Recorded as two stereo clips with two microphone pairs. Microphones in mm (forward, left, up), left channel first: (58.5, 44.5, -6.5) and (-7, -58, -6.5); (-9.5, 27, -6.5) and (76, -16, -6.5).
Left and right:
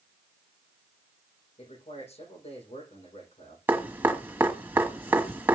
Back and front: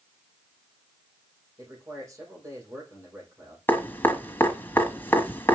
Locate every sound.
1.6 s a man speaking: 30° left, 8 m
3.7 s dripping: 170° right, 1.7 m